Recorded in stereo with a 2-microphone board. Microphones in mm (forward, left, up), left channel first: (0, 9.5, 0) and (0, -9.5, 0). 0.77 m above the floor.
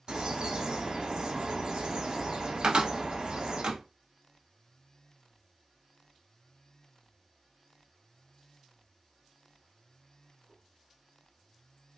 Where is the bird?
55° right (ahead or behind), 1.5 m.